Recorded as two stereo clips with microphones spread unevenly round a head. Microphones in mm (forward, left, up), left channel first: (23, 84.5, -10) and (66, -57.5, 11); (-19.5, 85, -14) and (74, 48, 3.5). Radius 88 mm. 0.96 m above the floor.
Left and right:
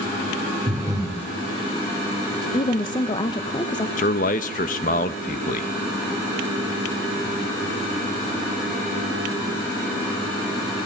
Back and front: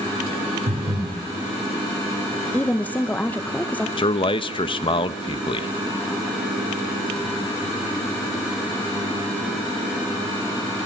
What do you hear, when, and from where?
0.7 s breathing: 5° right, 2.5 m
2.5 s a woman speaking: 110° left, 0.7 m
4.0 s a man speaking: 140° left, 0.6 m